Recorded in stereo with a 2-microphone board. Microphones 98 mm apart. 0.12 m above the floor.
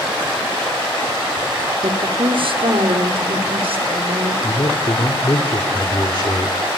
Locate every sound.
1.8 s a woman speaking: 60° right (ahead or behind), 2.5 m; by 4.3 s 70° right (ahead or behind), 6 m
4.4 s a man speaking: 50° left (ahead or behind), 2.5 m